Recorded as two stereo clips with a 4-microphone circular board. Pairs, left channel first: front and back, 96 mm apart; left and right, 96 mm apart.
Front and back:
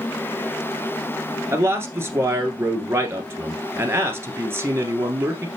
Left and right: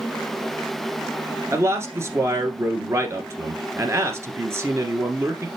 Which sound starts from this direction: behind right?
A man speaking, at 1.5 s.